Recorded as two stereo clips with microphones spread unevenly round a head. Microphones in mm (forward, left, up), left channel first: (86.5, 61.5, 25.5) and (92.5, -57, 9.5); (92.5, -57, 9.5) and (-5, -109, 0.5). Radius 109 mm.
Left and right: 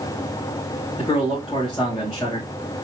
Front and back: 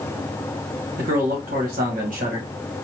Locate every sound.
1.0 s a man speaking: straight behind, 1.8 m